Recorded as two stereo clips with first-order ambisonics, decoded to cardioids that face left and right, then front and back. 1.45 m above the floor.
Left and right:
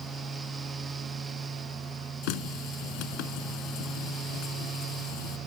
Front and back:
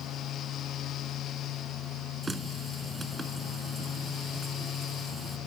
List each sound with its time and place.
2.2 s a running tap: 100° left